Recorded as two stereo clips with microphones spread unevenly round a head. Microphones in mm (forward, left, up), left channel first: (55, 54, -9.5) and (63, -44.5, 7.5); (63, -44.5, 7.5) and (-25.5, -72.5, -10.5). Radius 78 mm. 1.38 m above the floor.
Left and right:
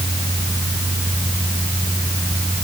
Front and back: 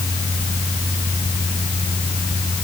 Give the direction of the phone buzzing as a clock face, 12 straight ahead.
I don't hear a phone buzzing.